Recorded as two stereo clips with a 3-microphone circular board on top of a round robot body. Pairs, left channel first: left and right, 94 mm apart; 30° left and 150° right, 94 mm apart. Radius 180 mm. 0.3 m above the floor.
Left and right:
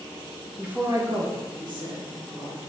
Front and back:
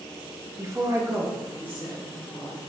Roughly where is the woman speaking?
Behind.